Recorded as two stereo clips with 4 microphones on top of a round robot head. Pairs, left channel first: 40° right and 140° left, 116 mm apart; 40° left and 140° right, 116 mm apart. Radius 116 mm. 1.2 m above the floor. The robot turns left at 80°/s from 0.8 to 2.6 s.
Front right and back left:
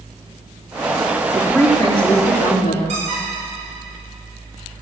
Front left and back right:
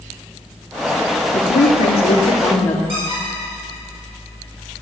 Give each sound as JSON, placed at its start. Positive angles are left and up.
{"t": 1.3, "sound": "a woman speaking", "azimuth_deg": 60, "distance_m": 2.5}
{"t": 2.9, "sound": "a squeak", "azimuth_deg": 180, "distance_m": 6.0}